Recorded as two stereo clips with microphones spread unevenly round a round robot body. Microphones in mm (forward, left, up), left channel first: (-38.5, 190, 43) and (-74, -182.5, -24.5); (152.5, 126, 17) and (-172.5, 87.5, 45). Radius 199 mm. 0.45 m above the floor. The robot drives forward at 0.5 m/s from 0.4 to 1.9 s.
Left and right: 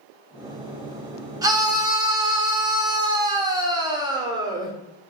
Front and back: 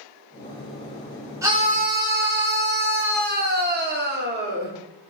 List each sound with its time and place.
1.4 s a scream: 95° right, 0.7 m; by 4.7 s 140° right, 0.8 m